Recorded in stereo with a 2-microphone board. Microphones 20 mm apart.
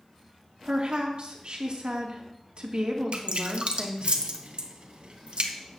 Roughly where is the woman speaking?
Right.